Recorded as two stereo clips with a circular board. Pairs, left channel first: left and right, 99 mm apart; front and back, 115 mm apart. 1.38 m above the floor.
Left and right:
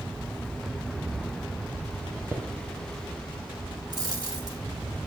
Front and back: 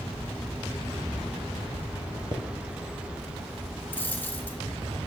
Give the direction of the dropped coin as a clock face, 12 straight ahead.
2 o'clock.